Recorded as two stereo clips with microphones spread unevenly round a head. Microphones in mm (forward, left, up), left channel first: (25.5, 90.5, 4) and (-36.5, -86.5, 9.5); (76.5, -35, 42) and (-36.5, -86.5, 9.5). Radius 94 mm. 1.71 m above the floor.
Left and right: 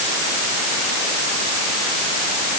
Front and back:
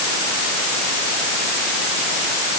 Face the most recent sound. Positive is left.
No sound to turn to.